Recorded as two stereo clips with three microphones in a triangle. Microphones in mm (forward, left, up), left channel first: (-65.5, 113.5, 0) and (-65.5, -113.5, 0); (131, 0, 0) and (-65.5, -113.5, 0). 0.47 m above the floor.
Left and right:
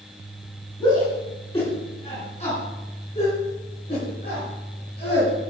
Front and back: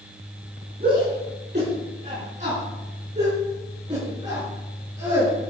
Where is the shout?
160° left, 6.5 m; by 5.5 s 135° left, 7.5 m.